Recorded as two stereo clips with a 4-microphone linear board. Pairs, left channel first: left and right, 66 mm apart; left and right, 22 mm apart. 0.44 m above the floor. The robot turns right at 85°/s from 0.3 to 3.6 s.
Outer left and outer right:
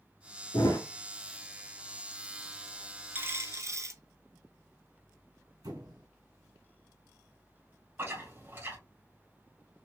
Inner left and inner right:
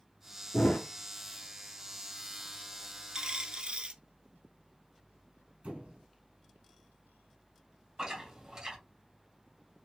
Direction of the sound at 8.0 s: 35° right (ahead or behind).